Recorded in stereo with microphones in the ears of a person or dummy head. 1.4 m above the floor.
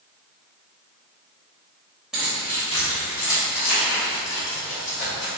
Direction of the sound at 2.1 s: 5° right (ahead or behind).